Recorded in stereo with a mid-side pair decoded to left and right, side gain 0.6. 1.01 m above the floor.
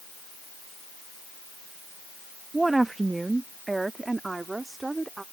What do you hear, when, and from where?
2.5 s a woman speaking: 15° right